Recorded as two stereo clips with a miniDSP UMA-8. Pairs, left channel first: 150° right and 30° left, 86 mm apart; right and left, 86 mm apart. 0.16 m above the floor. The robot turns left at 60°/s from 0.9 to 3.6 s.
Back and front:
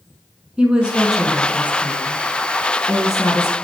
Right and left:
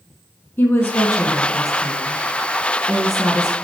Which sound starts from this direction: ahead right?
A woman speaking, at 0.6 s.